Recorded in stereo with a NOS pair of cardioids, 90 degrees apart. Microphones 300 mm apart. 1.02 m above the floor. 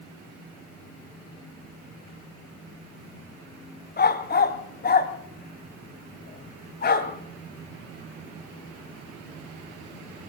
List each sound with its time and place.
4.0 s a dog barking: 35° left, 2 m